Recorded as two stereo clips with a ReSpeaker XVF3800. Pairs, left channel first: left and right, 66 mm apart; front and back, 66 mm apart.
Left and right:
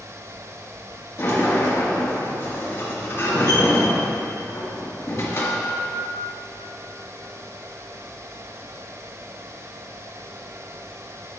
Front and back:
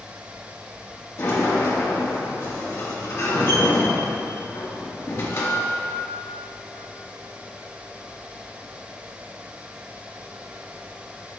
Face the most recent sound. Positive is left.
turn(degrees=40)